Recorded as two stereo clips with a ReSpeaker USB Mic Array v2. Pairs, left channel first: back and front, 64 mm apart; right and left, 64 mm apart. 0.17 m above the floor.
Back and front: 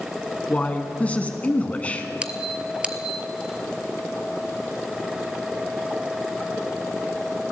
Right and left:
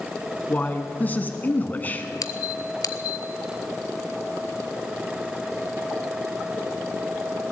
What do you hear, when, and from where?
0.5 s a man speaking: 130° right, 1.3 m
2.2 s a squeak: 70° right, 0.6 m